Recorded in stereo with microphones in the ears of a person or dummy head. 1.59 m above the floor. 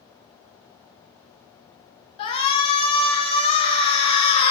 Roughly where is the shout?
Left.